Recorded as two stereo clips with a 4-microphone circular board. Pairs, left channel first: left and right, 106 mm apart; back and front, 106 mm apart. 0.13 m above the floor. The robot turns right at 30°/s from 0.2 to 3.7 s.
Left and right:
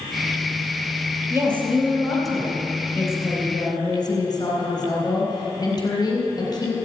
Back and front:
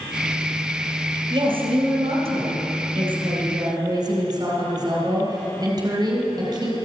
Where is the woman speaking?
30° right, 3 m; by 6.7 s 45° left, 3 m.